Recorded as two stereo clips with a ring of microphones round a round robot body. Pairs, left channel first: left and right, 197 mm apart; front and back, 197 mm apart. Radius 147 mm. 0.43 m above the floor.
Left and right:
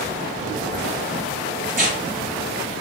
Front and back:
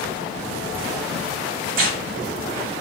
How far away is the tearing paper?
About 0.7 m.